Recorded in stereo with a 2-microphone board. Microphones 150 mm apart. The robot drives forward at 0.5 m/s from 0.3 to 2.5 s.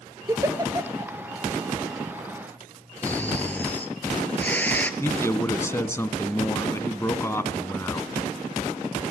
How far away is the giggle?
About 1.6 m.